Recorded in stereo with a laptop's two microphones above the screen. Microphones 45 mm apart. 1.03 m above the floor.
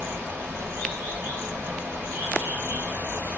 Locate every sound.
0.0 s running water: 65° right (ahead or behind), 1.2 m